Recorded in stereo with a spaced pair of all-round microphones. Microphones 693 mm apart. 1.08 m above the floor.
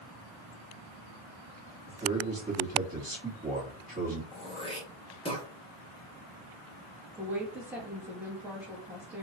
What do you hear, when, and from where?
1.9 s a man speaking: 10° right (ahead or behind), 2.5 m
4.3 s throat clearing: 10° left (ahead or behind), 1.4 m
7.2 s a woman speaking: centre (ahead or behind), 1.6 m